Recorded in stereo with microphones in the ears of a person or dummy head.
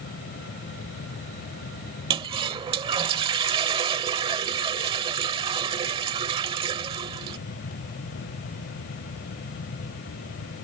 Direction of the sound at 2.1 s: 30° right (ahead or behind).